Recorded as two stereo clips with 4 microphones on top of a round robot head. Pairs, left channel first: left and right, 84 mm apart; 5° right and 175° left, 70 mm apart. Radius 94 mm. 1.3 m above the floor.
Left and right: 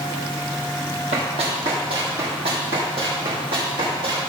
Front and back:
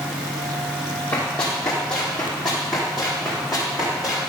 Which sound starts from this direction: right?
Running footsteps, at 1.1 s.